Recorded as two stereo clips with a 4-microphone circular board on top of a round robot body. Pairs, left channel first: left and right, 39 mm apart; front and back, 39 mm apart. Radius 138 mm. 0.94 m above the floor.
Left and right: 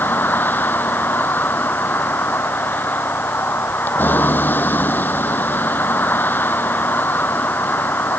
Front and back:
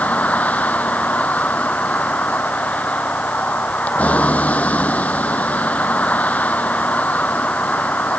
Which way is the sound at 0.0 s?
50° left.